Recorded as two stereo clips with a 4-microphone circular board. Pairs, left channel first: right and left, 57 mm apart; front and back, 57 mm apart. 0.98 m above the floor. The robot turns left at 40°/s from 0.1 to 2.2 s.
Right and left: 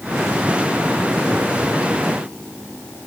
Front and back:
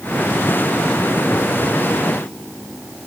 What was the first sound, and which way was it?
Only background noise.